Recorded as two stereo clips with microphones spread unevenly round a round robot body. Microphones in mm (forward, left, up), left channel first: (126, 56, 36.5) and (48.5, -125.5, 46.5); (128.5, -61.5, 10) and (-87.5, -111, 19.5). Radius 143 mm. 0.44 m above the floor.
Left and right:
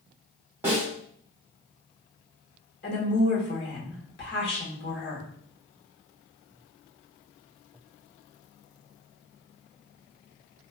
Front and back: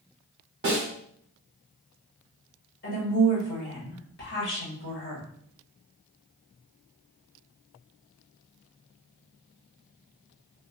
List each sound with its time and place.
0.6 s a snare drum: 170° left, 0.9 m
2.8 s a woman speaking: 50° left, 1.5 m